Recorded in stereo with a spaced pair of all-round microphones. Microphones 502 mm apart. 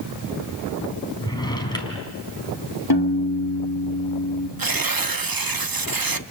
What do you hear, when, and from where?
1.2 s a drawer: 10° left (ahead or behind), 3.5 m
2.9 s a piano: 50° left (ahead or behind), 1.5 m
4.6 s tearing paper: 45° right (ahead or behind), 0.8 m